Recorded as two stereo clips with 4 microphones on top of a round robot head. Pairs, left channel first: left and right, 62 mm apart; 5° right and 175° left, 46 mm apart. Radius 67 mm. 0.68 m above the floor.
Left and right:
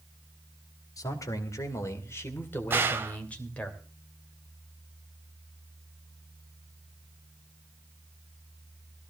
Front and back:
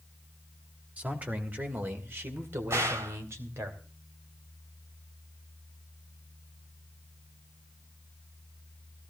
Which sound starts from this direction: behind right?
A gunshot, at 2.7 s.